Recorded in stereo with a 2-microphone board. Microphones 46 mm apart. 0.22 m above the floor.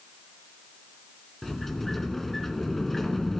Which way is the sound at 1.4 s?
5° left (ahead or behind).